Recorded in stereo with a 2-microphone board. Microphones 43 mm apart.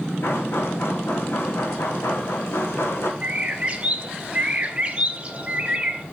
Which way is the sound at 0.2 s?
65° left (ahead or behind).